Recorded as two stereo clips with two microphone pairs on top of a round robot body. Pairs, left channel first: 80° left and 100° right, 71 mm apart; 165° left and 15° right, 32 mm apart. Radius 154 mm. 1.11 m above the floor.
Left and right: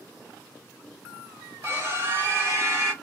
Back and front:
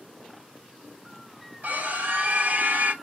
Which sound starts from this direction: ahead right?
A scream, at 1.6 s.